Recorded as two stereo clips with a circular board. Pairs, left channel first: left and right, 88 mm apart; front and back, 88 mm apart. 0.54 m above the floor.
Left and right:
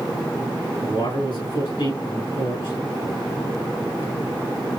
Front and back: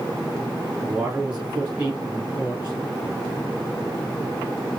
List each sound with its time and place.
0.8 s a man speaking: 105° left, 3.5 m